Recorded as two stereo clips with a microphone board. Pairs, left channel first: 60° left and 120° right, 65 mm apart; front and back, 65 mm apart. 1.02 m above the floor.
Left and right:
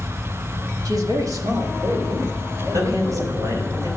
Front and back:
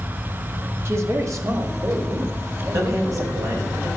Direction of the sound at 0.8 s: 135° right.